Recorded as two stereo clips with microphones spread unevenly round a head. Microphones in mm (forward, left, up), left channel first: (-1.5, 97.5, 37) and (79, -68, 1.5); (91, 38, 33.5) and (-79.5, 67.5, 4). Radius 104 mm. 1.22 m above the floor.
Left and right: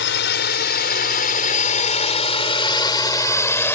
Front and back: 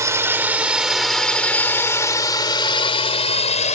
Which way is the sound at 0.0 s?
100° left.